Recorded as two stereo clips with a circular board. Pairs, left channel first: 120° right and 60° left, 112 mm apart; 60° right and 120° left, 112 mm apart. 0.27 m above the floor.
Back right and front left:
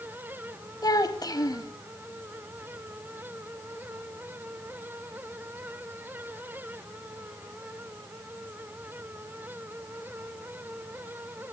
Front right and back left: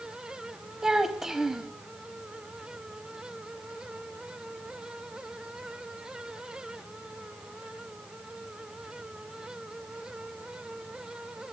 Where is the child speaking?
155° right, 0.9 m.